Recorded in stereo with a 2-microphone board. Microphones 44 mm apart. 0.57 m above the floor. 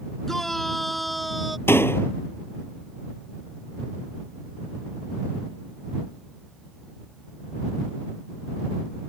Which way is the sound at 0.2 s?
5° left (ahead or behind).